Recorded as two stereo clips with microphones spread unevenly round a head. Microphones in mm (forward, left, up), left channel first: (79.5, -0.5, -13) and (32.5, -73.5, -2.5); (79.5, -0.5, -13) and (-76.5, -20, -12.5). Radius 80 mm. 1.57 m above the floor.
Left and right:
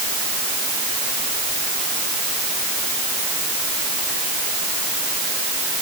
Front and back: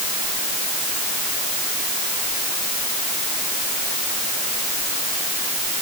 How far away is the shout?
I don't hear a shout.